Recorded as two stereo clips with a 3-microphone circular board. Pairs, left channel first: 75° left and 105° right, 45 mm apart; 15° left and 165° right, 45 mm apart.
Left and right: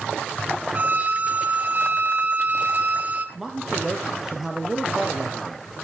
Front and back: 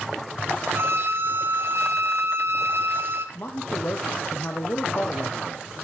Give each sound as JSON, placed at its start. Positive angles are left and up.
{"t": 0.7, "sound": "a violin", "azimuth_deg": -150, "distance_m": 0.9}
{"t": 3.4, "sound": "a man speaking", "azimuth_deg": -25, "distance_m": 1.1}